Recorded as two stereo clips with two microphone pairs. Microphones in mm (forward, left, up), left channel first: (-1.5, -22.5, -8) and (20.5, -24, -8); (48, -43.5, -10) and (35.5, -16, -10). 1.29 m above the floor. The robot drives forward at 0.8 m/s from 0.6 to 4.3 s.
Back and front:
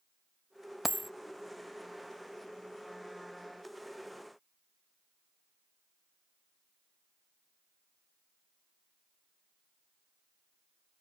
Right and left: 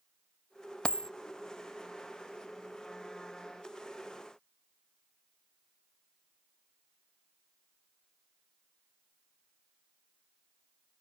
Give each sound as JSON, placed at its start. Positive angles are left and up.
{"t": 0.8, "sound": "a dropped coin", "azimuth_deg": -75}